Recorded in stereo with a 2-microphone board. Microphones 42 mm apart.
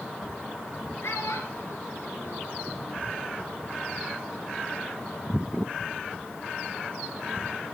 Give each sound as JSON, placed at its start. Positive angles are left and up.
{"t": 1.0, "sound": "a child speaking", "side_deg": 75, "distance_m": 4.5}